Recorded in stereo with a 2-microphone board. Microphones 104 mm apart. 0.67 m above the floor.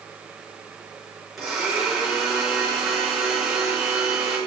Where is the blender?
5° right (ahead or behind), 5.5 m.